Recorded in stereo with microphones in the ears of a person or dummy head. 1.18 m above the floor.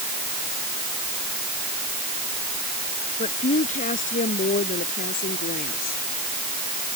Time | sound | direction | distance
3.2 | a woman speaking | 30° left (ahead or behind) | ?